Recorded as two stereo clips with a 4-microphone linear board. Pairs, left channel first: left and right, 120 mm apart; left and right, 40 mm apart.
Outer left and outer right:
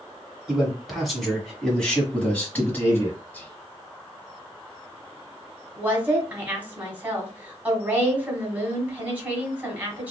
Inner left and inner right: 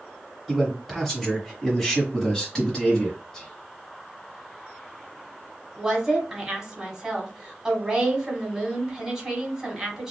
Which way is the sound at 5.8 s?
15° right (ahead or behind).